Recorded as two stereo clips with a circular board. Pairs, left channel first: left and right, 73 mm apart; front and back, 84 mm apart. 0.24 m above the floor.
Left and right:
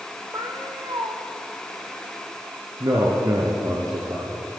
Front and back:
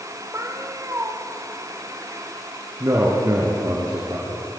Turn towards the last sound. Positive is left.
turn(degrees=-125)